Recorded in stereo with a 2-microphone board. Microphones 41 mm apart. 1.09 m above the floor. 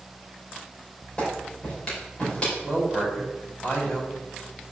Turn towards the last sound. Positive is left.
turn(degrees=35)  # may be behind; listen again after turning